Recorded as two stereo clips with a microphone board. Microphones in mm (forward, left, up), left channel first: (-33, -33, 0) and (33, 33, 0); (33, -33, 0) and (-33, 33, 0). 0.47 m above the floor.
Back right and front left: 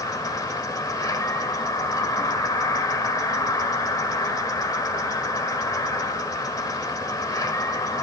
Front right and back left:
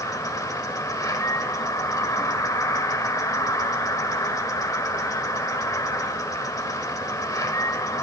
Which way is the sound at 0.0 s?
90° right.